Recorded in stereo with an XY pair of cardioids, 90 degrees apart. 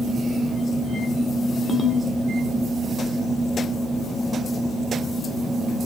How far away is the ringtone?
About 2 m.